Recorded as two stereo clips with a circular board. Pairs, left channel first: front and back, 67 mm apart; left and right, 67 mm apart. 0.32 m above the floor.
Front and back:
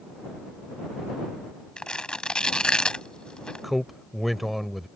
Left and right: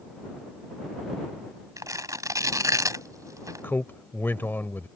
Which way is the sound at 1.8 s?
75° right.